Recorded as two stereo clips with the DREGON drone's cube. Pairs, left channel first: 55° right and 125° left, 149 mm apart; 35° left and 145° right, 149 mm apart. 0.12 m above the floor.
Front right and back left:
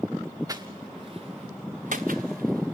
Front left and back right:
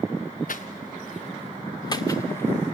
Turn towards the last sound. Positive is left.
turn(degrees=120)